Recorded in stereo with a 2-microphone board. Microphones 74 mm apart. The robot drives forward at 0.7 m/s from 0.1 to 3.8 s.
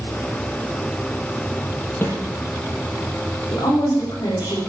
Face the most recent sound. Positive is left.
turn(degrees=65)  # may be behind; listen again after turning